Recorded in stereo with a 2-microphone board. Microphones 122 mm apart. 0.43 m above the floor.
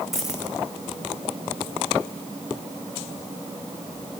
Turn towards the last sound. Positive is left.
turn(degrees=0)  # may be behind; listen again after turning